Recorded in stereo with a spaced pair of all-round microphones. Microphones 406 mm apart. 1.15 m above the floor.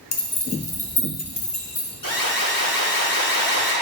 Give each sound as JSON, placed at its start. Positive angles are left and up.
{"t": 0.1, "sound": "keys jangling", "side_deg": 70, "distance_m": 1.0}
{"t": 2.0, "sound": "an alarm", "side_deg": 55, "distance_m": 2.5}